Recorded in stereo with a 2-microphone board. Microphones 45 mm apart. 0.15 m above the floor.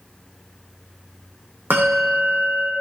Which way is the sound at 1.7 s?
55° right (ahead or behind).